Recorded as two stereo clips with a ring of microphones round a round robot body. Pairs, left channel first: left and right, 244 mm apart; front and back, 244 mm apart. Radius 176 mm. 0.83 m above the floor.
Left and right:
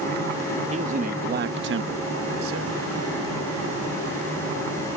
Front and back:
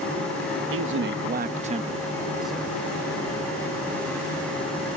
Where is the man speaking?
155° right; by 2.8 s 85° right.